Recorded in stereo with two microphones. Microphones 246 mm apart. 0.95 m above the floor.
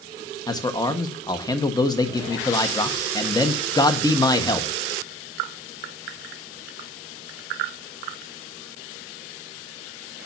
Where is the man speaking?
15° left (ahead or behind), 1.4 m.